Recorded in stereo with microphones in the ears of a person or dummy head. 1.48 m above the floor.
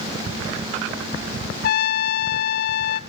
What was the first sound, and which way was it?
A trumpet, 60° left (ahead or behind).